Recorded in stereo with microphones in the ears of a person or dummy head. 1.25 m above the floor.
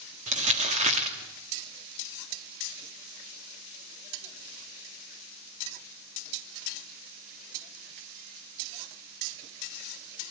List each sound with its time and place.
0.3 s crumpling: 35° right (ahead or behind), 2 m